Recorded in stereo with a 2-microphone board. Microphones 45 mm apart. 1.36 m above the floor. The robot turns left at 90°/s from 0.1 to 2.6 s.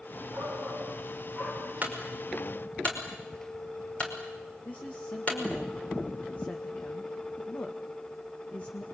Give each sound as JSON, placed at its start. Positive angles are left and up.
{"t": 0.3, "sound": "a shout", "azimuth_deg": -45, "distance_m": 8.5}
{"t": 1.8, "sound": "a clunk", "side_deg": -40, "distance_m": 5.0}
{"t": 4.7, "sound": "a woman speaking", "side_deg": 40, "distance_m": 1.8}